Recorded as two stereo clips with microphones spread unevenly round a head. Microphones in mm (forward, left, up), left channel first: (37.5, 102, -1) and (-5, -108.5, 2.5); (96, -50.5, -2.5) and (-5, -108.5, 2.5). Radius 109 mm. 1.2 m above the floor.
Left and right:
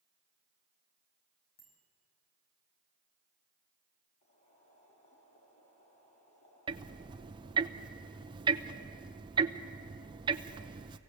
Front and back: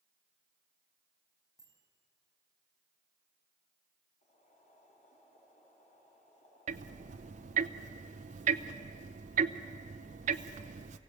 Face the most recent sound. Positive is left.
turn(degrees=-170)